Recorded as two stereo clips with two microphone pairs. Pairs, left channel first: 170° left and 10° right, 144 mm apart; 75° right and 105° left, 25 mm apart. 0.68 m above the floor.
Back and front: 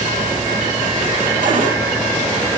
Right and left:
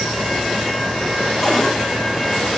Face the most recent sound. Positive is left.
turn(degrees=-10)